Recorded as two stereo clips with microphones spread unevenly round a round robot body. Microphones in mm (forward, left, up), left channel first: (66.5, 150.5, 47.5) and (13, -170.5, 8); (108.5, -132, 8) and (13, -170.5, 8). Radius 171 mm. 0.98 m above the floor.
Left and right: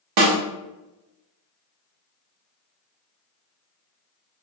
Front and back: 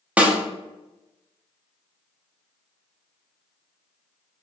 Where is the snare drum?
80° right, 0.9 m.